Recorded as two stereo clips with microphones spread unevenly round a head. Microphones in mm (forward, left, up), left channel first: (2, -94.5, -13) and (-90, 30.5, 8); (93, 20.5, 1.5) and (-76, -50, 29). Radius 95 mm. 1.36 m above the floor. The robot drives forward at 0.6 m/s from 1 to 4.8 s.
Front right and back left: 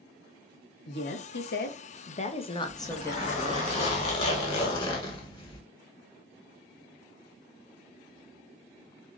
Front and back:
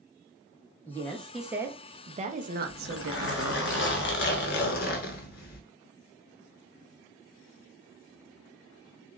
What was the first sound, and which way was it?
A woman speaking, 60° right.